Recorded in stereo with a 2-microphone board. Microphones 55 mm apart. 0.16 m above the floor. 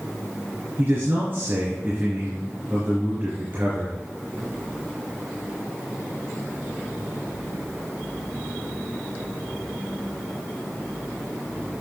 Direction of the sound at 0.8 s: 45° right (ahead or behind).